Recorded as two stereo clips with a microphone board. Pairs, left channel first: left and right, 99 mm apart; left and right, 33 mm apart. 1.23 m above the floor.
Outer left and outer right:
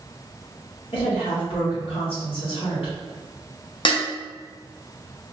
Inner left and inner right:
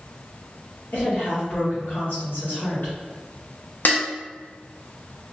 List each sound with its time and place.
0.9 s a woman speaking: 70° left (ahead or behind), 1.2 m
3.9 s dishes clattering: 60° left (ahead or behind), 0.7 m